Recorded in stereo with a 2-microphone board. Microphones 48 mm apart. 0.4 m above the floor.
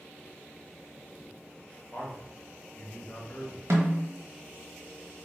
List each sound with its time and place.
1.9 s a man speaking: 35° left (ahead or behind), 1.1 m
3.7 s a snare drum: 75° right (ahead or behind), 0.9 m